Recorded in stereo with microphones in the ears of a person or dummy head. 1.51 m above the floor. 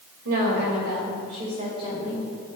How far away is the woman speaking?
About 2 m.